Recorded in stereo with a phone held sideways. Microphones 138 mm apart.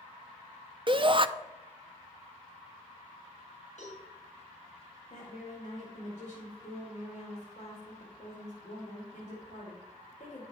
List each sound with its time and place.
0.9 s a shout: 40° right (ahead or behind), 0.5 m
3.8 s a cowbell: 60° left (ahead or behind), 4 m
5.1 s a woman speaking: 65° left (ahead or behind), 2 m